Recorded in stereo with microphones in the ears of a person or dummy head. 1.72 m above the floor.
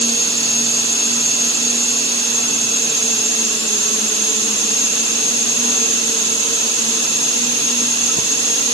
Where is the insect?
30° left (ahead or behind), 1.0 m.